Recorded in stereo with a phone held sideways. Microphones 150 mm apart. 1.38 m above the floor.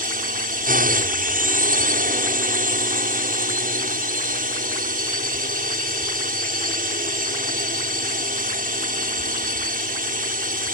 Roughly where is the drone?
Right.